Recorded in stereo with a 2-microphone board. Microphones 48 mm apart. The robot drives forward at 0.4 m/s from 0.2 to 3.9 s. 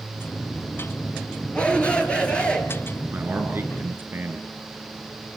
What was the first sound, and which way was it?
A shout, 25° left (ahead or behind).